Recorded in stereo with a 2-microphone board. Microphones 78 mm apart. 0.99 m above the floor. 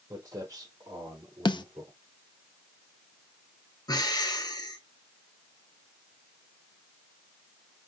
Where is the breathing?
55° left (ahead or behind), 1.1 m.